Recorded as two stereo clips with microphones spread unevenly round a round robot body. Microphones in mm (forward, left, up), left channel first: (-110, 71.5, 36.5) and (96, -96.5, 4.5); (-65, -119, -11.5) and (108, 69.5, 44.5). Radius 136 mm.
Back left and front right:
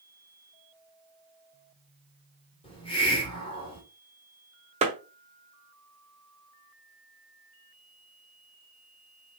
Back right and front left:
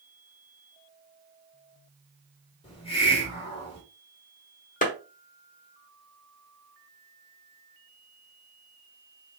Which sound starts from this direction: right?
A clap, at 4.8 s.